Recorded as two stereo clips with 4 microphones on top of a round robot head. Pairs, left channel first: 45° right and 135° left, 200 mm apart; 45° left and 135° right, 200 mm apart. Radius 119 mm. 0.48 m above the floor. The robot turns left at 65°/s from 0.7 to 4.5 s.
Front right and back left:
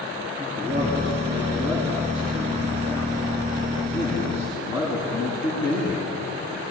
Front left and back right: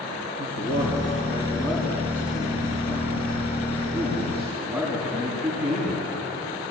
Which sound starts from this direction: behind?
A man speaking, at 0.4 s.